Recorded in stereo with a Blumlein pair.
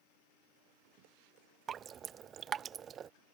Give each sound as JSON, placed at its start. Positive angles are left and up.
{"t": 1.7, "sound": "dripping", "azimuth_deg": -25}